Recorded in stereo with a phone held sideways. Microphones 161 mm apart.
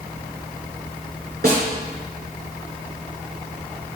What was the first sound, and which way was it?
A snare drum, 70° right (ahead or behind).